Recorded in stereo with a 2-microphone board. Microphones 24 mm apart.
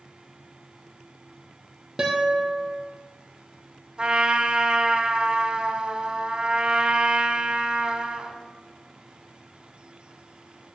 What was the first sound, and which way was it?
A guitar, 25° right (ahead or behind).